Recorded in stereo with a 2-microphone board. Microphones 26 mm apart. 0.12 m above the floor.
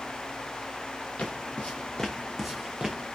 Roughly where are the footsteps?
Left.